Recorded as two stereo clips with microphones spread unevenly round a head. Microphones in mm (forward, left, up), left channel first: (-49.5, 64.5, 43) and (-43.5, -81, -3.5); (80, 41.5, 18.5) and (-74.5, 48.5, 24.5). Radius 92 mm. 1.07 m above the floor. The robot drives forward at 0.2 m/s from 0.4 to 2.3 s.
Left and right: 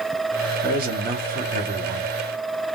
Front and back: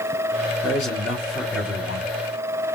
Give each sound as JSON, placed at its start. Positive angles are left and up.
{"t": 0.6, "sound": "a man speaking", "azimuth_deg": -85, "distance_m": 2.5}